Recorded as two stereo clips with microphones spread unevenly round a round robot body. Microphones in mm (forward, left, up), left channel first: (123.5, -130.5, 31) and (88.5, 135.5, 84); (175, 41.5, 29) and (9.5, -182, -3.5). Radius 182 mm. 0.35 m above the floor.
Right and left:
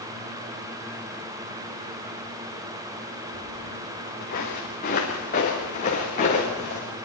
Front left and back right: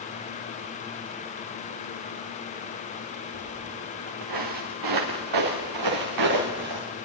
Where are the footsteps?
145° right, 1.6 m; by 6.9 s 155° right, 4 m.